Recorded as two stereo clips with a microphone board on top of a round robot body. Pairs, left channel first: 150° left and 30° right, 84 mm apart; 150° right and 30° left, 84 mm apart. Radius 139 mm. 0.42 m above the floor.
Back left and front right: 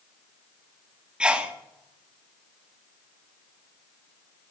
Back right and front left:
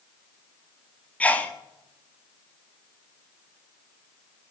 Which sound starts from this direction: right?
A sneeze, at 1.2 s.